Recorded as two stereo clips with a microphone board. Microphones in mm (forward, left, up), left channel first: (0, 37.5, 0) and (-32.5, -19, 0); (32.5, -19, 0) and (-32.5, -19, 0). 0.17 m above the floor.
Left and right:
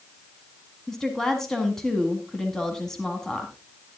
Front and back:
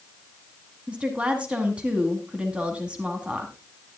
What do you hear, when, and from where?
0.9 s a woman speaking: 135° left, 1.6 m